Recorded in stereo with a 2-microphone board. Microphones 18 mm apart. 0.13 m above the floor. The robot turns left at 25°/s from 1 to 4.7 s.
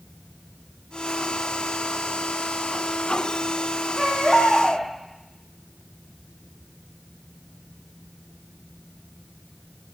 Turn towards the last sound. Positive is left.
turn(degrees=50)  # may be behind; listen again after turning